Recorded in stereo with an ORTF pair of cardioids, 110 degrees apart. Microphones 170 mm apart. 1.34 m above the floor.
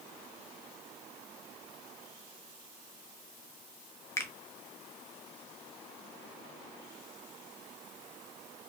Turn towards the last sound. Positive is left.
turn(degrees=15)